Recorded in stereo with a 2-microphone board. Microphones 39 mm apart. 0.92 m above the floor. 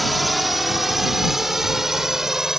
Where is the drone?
Centre (ahead or behind); by 2.6 s 10° right (ahead or behind).